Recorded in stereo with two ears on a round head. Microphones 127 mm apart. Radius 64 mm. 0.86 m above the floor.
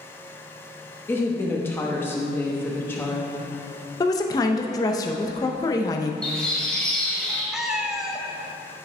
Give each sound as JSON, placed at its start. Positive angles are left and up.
{"t": 1.1, "sound": "a woman speaking", "side_deg": 15, "distance_m": 0.9}
{"t": 4.0, "sound": "a woman speaking", "side_deg": 25, "distance_m": 0.6}
{"t": 6.2, "sound": "a bird", "side_deg": 5, "distance_m": 2.5}
{"t": 7.5, "sound": "a cat meowing", "side_deg": -5, "distance_m": 0.6}